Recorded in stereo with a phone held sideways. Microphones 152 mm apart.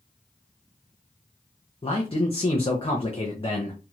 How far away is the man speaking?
About 0.6 m.